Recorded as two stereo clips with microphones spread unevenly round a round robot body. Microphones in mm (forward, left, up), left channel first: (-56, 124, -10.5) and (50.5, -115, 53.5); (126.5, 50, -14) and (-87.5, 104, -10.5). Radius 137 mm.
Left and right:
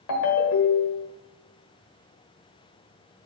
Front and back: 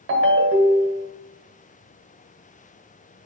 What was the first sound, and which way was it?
A ringtone, 130° left.